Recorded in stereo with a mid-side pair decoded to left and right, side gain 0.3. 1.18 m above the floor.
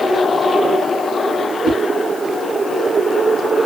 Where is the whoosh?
70° left, 2 m.